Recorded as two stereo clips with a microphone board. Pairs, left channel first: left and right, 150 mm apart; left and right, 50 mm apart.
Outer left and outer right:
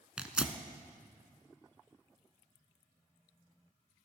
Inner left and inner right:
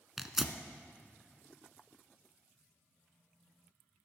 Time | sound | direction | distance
0.2 | tearing paper | 5° right (ahead or behind) | 0.7 m